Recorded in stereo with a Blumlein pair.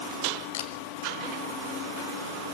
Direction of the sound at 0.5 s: 55° left.